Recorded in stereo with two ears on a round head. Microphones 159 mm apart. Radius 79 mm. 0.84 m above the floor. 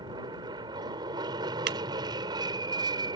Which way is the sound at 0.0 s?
25° right (ahead or behind).